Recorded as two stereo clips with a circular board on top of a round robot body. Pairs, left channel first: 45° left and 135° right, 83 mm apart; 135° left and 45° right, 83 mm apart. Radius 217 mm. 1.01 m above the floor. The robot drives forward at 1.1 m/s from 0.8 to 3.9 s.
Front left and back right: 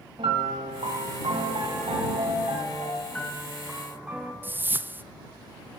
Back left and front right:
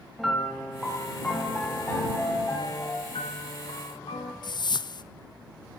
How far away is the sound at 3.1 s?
About 1.0 m.